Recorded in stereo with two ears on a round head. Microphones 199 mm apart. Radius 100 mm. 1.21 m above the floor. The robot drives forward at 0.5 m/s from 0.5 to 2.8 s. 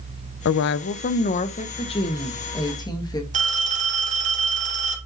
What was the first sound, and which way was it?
A woman speaking, 60° left (ahead or behind).